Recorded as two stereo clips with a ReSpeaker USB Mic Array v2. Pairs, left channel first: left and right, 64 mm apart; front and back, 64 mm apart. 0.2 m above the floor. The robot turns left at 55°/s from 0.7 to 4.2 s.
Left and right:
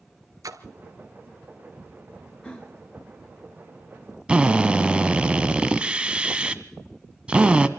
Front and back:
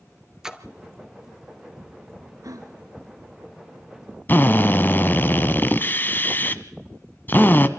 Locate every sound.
0.4 s a splash: 100° right, 1.1 m
2.4 s a gasp: 165° left, 3 m; by 5.0 s 65° left, 3 m
4.3 s a drill: 30° right, 1.0 m